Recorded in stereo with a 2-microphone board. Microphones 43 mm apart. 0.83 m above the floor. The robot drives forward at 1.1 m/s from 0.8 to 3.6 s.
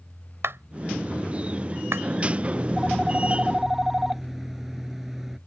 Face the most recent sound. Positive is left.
turn(degrees=-5)  # may be behind; listen again after turning